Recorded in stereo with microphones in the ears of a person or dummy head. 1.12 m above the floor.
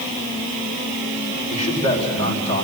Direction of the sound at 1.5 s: 30° left (ahead or behind).